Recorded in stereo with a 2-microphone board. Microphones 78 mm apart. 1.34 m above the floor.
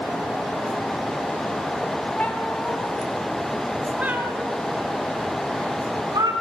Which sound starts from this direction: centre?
A cat meowing, at 2.2 s.